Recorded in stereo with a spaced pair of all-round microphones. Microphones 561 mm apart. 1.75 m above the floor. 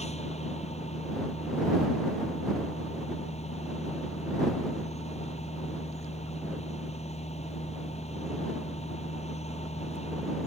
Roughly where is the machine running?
Centre.